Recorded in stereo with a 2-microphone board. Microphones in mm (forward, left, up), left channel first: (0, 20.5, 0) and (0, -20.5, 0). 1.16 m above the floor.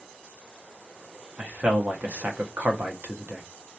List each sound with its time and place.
1.4 s a man speaking: 40° right (ahead or behind), 0.6 m